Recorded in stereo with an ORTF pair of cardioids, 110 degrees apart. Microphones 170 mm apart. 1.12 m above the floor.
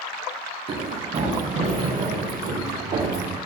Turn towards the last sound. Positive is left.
turn(degrees=-65)